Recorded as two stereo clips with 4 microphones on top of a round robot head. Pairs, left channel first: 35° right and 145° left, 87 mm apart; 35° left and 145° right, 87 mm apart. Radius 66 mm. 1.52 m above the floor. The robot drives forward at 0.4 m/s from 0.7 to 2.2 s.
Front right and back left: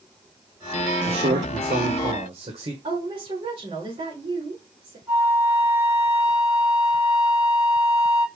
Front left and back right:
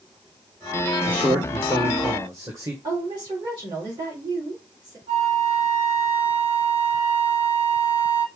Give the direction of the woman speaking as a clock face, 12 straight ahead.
6 o'clock.